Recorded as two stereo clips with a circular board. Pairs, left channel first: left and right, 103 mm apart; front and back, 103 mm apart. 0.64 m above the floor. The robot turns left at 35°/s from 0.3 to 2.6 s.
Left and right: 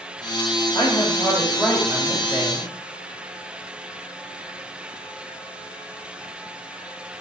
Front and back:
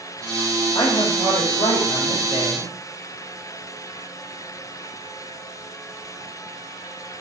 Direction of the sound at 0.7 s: 50° left.